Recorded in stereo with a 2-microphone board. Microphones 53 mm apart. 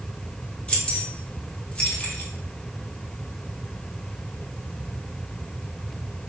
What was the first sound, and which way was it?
Keys jangling, 20° left (ahead or behind).